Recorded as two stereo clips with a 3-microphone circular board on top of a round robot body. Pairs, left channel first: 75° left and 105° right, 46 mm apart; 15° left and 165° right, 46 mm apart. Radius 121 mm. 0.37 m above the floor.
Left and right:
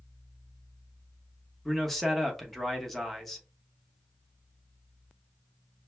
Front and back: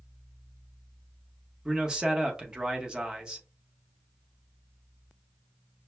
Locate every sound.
1.6 s a man speaking: 150° left, 1.1 m